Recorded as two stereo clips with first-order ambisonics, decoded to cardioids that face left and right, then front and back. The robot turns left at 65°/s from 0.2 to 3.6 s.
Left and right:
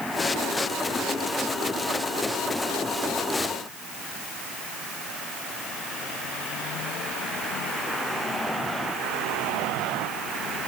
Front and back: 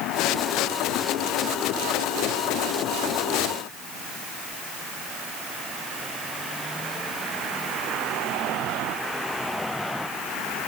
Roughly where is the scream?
I don't hear a scream.